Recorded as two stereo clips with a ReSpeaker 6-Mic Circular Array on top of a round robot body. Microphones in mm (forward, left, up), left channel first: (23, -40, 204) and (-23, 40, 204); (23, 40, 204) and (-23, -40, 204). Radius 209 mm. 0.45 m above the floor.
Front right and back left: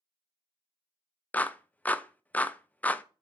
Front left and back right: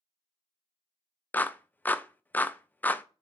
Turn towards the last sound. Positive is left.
turn(degrees=5)